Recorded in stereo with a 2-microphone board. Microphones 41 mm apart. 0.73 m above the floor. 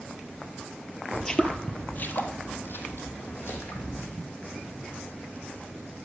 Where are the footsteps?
10° left (ahead or behind), 0.8 m; by 4.0 s 75° left (ahead or behind), 2 m.